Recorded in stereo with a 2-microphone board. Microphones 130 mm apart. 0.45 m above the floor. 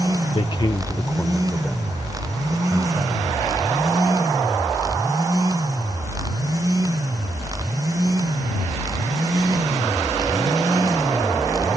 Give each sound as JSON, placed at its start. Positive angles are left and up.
{"t": 0.3, "sound": "a man speaking", "side_deg": 45}